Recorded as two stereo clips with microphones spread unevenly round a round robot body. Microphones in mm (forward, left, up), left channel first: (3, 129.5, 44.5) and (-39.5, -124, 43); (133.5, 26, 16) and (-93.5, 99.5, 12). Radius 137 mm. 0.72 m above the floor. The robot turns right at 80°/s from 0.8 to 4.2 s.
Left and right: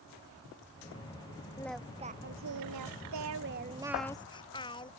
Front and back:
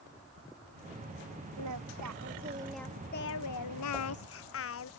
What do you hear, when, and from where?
1.6 s singing: 155° left; by 4.9 s 5° left